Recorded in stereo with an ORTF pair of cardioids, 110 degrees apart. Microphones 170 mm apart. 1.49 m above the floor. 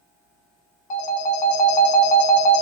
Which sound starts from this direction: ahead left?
A phone ringing, at 0.9 s.